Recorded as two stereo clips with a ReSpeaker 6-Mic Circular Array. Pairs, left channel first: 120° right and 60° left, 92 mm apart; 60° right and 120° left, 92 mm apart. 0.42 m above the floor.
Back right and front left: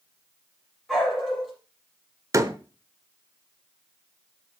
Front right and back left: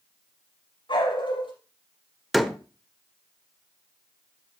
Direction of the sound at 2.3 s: 30° left.